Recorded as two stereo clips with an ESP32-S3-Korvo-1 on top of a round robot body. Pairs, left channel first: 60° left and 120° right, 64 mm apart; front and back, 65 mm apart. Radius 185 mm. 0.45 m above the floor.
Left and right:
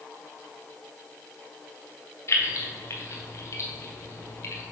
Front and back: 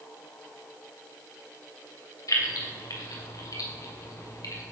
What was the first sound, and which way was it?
Keys jangling, 15° left.